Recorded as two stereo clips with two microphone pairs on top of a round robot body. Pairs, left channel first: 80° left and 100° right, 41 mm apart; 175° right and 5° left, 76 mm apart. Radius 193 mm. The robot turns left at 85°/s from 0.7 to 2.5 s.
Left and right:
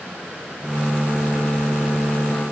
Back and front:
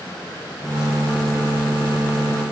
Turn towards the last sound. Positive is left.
No sound to turn to.